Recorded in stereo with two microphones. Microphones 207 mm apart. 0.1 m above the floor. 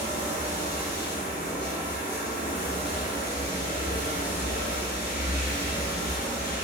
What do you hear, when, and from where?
0.0 s running water: 45° left (ahead or behind), 1.0 m